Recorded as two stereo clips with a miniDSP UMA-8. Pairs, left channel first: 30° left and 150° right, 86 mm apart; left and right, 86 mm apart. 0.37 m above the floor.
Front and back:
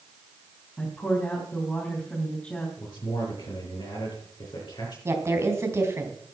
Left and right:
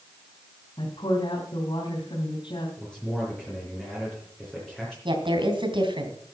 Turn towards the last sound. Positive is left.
turn(degrees=-95)